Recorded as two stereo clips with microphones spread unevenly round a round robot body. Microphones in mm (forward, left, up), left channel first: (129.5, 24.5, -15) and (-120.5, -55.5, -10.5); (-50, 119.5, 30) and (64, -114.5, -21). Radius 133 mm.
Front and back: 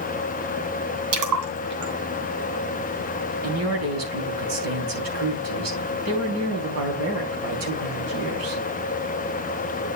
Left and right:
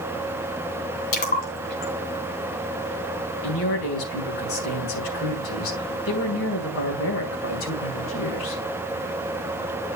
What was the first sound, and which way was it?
A splash, 170° left.